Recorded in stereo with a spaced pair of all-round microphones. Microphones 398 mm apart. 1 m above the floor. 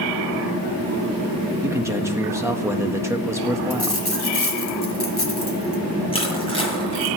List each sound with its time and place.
1.6 s a man speaking: 5° right (ahead or behind), 1.5 m
3.7 s a dropped coin: 75° left (ahead or behind), 3 m
6.1 s crushing: 15° left (ahead or behind), 9 m